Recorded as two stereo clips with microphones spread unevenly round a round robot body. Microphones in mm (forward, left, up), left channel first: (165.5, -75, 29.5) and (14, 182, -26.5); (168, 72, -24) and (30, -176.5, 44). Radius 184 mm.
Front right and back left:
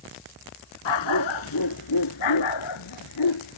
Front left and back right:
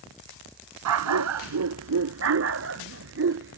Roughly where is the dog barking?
Right.